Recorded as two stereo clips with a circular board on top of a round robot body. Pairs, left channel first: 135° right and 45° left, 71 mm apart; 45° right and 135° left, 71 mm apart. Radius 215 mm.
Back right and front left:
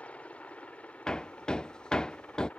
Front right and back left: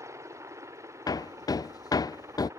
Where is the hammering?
55° right.